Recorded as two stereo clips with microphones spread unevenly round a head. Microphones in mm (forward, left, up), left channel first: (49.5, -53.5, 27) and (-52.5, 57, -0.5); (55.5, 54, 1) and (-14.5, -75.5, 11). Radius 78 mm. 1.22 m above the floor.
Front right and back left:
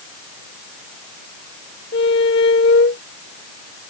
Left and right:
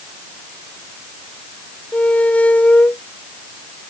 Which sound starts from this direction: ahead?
A squeak, at 1.9 s.